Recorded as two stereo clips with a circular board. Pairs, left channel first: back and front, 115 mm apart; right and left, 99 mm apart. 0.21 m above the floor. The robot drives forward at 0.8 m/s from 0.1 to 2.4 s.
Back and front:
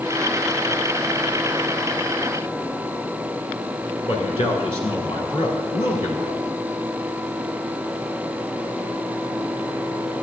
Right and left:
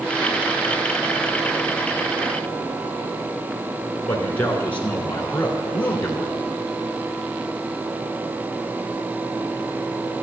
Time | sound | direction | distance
4.1 | a man speaking | 160° right | 1.8 m